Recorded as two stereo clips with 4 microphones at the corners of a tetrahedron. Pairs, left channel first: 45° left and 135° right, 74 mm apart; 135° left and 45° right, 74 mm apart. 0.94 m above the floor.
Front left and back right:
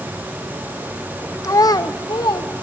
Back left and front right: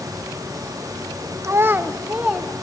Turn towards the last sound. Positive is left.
turn(degrees=30)